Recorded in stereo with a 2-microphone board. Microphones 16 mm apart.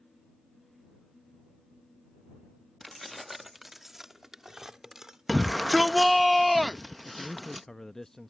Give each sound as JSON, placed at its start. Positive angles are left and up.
{"t": 2.8, "sound": "keys jangling", "side_deg": 10}
{"t": 5.3, "sound": "a shout", "side_deg": 0}
{"t": 7.0, "sound": "a man speaking", "side_deg": 35}